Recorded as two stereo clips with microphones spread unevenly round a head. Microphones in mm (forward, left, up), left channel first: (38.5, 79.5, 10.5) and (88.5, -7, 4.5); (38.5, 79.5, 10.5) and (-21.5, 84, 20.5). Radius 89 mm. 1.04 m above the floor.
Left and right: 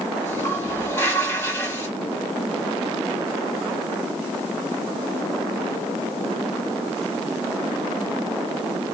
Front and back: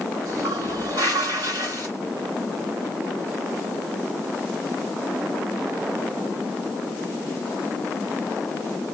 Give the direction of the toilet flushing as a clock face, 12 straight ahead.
6 o'clock.